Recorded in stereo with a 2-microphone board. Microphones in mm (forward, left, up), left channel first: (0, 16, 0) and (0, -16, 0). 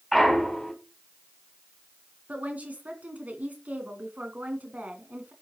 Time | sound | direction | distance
0.1 | a clunk | centre (ahead or behind) | 3 m
2.3 | a woman speaking | 55° right (ahead or behind) | 2.5 m